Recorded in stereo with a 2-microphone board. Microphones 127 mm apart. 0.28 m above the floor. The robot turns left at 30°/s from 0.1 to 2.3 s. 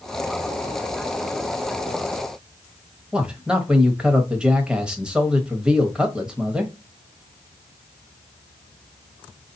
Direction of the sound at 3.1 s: 5° right (ahead or behind).